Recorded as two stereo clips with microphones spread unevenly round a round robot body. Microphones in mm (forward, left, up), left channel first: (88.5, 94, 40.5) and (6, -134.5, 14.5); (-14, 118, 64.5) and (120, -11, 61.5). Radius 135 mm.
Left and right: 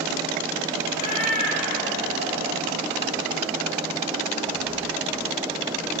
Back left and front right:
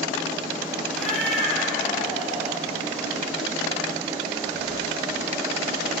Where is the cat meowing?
45° left, 9.5 m.